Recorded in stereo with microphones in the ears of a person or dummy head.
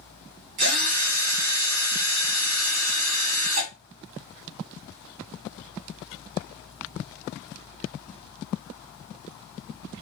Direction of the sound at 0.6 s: 80° right.